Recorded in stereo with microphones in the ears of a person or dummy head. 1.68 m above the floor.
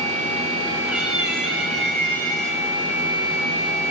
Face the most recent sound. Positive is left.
turn(degrees=10)  # may be behind; listen again after turning